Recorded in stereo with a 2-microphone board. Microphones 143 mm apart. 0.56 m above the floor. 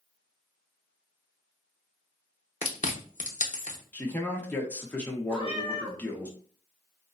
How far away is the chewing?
About 0.7 m.